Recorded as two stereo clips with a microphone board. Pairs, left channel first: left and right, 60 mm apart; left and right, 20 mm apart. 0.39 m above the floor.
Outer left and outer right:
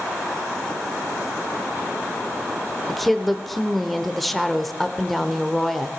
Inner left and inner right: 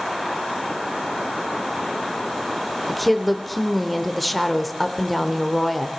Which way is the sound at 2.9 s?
5° left (ahead or behind).